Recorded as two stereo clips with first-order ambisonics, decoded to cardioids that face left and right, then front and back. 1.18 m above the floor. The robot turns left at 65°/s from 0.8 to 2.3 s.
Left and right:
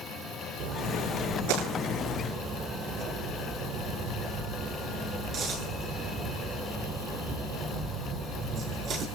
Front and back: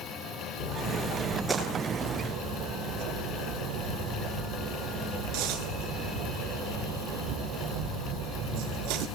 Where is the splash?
55° right, 8 m; by 9.1 s 150° right, 8 m.